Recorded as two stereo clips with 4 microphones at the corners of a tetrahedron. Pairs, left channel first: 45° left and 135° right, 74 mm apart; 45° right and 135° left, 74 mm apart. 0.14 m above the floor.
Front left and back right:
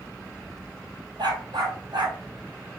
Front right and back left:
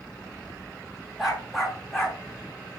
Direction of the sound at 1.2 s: 140° right.